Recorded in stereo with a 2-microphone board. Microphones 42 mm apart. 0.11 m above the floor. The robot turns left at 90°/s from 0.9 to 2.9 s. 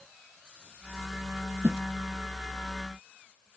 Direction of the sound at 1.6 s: 60° right (ahead or behind).